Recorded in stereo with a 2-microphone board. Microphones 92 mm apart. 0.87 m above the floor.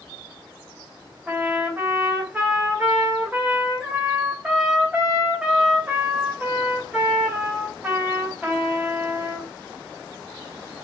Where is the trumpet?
15° right (ahead or behind), 3 m.